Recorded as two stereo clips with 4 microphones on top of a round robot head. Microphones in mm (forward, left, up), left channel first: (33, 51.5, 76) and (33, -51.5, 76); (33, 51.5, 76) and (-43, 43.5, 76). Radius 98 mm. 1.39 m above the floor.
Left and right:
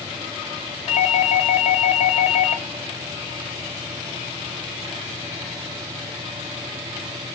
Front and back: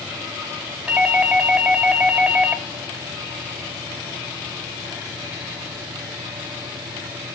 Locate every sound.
0.9 s a doorbell: 115° left, 2 m